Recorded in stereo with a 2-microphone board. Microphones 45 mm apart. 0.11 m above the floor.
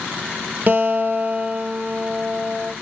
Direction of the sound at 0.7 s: 45° right (ahead or behind).